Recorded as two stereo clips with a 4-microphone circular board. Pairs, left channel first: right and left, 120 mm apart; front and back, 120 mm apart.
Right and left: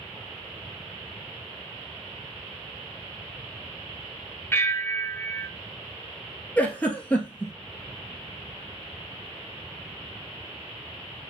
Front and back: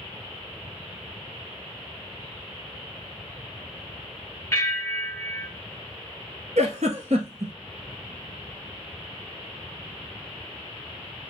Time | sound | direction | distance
4.5 | a bell | 45° right | 1.0 m
6.6 | a giggle | 170° right | 1.3 m